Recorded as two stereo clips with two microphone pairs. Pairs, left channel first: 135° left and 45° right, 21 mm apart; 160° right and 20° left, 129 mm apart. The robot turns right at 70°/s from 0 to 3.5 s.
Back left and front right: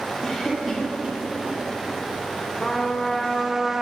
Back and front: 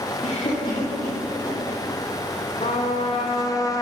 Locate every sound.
0.2 s a cough: 150° right, 2.0 m; by 1.6 s 55° right, 2.0 m
2.6 s a trumpet: 175° right, 0.9 m; by 3.8 s 110° right, 0.9 m